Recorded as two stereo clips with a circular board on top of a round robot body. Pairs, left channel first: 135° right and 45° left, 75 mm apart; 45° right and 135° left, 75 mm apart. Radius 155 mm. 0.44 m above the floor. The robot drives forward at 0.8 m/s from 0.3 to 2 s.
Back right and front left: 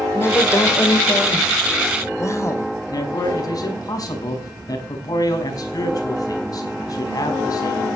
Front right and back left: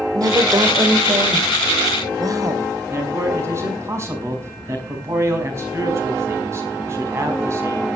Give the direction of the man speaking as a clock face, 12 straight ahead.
6 o'clock.